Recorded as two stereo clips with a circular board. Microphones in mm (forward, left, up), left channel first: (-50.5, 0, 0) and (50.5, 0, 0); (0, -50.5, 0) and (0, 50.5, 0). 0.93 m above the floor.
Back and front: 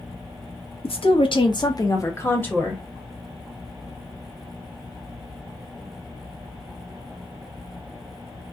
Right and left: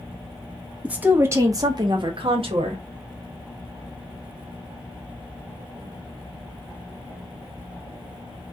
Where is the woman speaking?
170° left, 1.0 m; by 2.8 s 100° left, 1.1 m.